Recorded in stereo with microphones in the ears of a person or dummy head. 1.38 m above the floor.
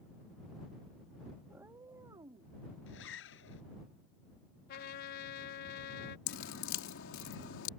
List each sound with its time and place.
1.5 s a cat meowing: 10° right (ahead or behind); by 2.5 s 25° right (ahead or behind)
2.9 s a zipper: 70° left (ahead or behind)
4.7 s a trumpet: 50° left (ahead or behind)
6.3 s dripping: 70° left (ahead or behind)